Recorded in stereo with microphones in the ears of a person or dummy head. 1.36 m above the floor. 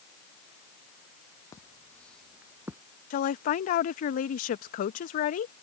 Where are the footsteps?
20° left (ahead or behind); by 2.8 s 10° right (ahead or behind).